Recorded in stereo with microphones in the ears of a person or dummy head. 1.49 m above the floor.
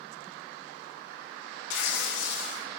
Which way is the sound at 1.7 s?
70° left (ahead or behind).